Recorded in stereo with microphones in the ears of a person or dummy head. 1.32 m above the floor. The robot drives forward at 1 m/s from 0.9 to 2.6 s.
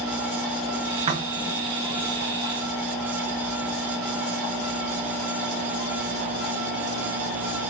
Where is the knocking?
35° right (ahead or behind), 1.7 m; by 1.9 s 25° right (ahead or behind), 2.5 m.